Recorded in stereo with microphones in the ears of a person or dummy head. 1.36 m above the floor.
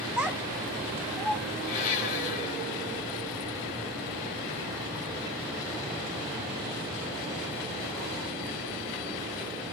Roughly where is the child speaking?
Centre.